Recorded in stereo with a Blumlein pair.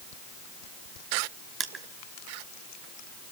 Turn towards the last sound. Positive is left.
turn(degrees=-20)